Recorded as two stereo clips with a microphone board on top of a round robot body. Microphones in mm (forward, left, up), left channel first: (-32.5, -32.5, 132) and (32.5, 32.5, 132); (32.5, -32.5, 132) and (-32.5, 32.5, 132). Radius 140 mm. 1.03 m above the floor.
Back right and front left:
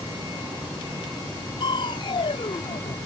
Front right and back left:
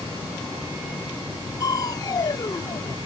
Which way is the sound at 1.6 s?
95° right.